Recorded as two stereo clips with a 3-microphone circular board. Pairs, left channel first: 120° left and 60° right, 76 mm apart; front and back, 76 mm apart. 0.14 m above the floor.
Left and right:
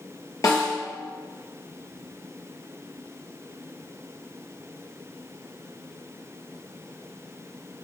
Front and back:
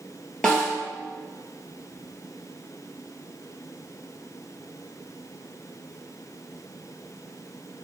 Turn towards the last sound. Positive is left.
turn(degrees=80)